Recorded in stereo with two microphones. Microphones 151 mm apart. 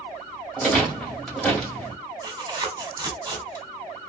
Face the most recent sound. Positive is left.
turn(degrees=-25)  # may be behind; listen again after turning